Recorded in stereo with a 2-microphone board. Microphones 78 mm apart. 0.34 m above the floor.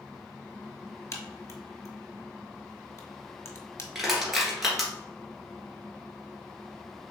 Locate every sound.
1.1 s a crack: 40° left (ahead or behind), 0.8 m
4.0 s crushing: 5° right (ahead or behind), 1.7 m